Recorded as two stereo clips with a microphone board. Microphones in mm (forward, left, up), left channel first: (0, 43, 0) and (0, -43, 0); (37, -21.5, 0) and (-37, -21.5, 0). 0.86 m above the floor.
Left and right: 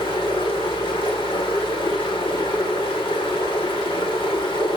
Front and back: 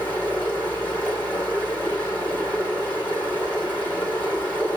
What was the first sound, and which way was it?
Running water, 70° left.